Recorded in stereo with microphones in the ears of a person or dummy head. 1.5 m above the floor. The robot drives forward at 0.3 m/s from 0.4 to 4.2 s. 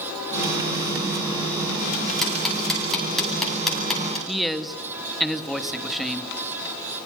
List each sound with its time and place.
2.2 s ticking: 5° left (ahead or behind), 9 m
4.3 s a man speaking: centre (ahead or behind), 1.9 m